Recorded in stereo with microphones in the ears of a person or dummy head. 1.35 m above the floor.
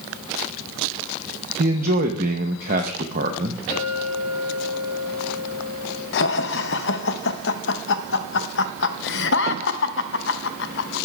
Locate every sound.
1.6 s a man speaking: 50° right (ahead or behind), 0.7 m
3.7 s a clink: 35° left (ahead or behind), 5 m
6.1 s laughter: 65° left (ahead or behind), 0.6 m